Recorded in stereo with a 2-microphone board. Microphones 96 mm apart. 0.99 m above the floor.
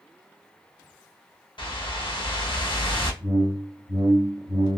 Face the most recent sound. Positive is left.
turn(degrees=-40)  # may be behind; listen again after turning